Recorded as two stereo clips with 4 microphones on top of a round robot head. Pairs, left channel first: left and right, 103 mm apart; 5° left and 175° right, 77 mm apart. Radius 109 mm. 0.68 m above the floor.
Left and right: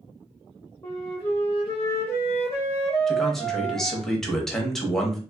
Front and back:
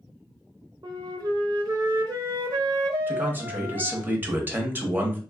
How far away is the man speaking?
About 1.0 m.